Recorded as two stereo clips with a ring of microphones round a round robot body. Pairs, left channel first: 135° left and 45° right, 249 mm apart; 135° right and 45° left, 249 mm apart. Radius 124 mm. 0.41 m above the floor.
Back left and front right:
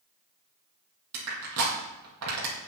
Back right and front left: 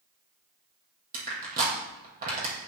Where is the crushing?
15° right, 5 m.